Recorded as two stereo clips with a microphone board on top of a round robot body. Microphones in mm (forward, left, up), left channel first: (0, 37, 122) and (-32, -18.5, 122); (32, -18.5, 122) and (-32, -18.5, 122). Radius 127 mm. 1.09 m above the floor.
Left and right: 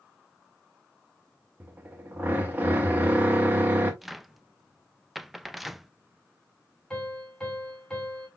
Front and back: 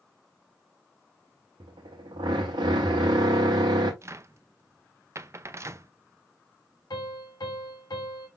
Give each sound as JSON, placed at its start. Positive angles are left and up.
{"t": 1.6, "sound": "a drill", "azimuth_deg": 175, "distance_m": 0.9}
{"t": 4.0, "sound": "a cupboard door", "azimuth_deg": 150, "distance_m": 0.6}
{"t": 6.9, "sound": "a piano", "azimuth_deg": -20, "distance_m": 2.5}